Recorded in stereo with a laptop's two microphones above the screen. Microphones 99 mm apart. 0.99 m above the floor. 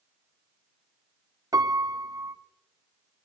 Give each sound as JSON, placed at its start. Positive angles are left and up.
{"t": 1.5, "sound": "a piano", "side_deg": -35, "distance_m": 0.6}